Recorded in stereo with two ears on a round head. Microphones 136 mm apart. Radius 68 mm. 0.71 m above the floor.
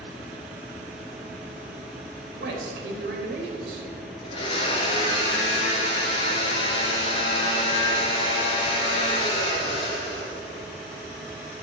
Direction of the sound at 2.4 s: 75° right (ahead or behind).